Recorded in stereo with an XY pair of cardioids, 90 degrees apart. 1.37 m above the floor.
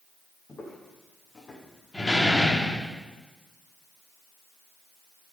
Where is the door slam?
15° left, 2.5 m.